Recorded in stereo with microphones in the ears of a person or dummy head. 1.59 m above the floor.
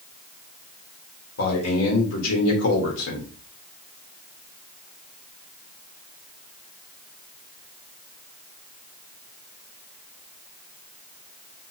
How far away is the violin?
I don't hear a violin.